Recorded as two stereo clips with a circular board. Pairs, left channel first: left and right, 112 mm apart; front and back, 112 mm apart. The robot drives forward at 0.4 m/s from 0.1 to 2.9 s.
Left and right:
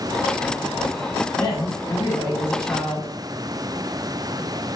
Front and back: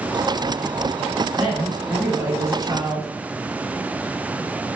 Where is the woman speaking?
95° left, 1.3 m; by 3.1 s 135° left, 1.5 m.